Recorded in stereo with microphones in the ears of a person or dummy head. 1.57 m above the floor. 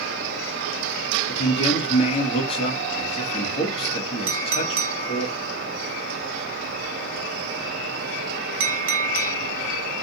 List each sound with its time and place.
1.3 s a man speaking: 30° left (ahead or behind), 1.0 m
4.3 s a clink: 60° right (ahead or behind), 1.0 m